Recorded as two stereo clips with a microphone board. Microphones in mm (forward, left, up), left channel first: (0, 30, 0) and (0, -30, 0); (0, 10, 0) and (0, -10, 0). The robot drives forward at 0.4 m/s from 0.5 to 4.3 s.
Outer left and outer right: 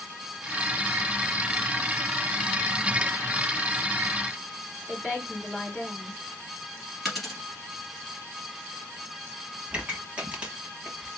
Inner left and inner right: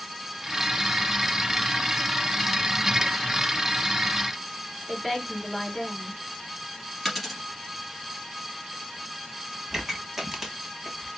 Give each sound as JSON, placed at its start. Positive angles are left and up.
{"t": 4.9, "sound": "a woman speaking", "side_deg": 0, "distance_m": 3.5}
{"t": 7.0, "sound": "a dropped coin", "side_deg": 0, "distance_m": 1.9}
{"t": 9.7, "sound": "a pop", "side_deg": -20, "distance_m": 1.1}